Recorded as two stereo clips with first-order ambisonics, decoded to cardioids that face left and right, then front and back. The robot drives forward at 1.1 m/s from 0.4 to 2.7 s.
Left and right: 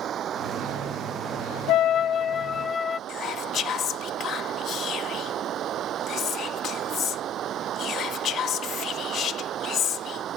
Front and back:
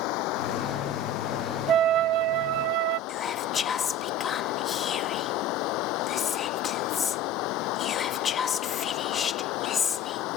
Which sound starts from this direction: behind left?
A flute, at 1.7 s.